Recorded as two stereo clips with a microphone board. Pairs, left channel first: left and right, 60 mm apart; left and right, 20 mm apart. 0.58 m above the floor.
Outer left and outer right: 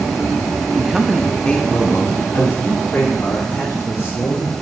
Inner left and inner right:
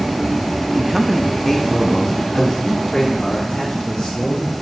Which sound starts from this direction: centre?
A man speaking, at 0.8 s.